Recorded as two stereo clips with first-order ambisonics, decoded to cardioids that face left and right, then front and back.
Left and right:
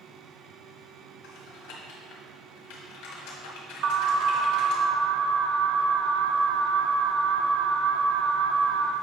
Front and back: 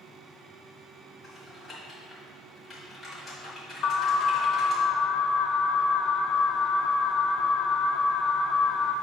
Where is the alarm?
50° right, 0.6 m.